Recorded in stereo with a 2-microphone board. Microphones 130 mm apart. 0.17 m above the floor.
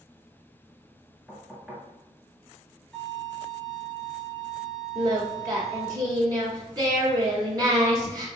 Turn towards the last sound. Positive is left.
turn(degrees=-30)  # may be behind; listen again after turning